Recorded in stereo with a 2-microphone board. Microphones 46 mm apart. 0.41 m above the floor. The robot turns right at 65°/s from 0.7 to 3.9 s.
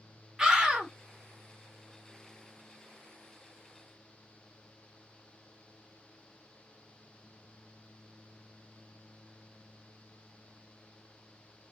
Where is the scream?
15° right (ahead or behind), 1.0 m; by 0.9 s 20° right (ahead or behind), 1.0 m.